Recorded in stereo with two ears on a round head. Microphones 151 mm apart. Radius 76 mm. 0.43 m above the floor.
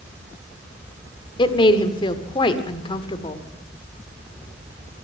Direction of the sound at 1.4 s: 30° left (ahead or behind).